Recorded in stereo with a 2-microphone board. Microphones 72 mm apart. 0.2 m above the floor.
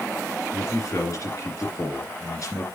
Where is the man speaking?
50° left (ahead or behind), 2.5 m.